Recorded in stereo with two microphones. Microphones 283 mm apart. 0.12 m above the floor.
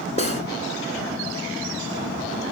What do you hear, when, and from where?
0.2 s cutlery clinking: 25° left (ahead or behind), 0.7 m